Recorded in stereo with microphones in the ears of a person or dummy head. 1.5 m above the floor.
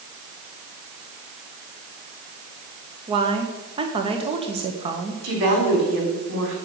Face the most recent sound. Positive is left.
turn(degrees=-65)  # may be behind; listen again after turning